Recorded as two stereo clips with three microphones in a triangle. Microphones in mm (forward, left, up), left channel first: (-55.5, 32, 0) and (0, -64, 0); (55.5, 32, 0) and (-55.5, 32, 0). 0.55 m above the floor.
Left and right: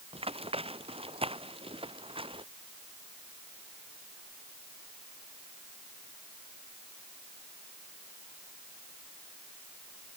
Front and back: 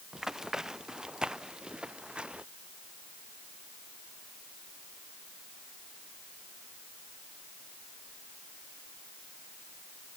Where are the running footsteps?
95° right; by 2.5 s 100° right.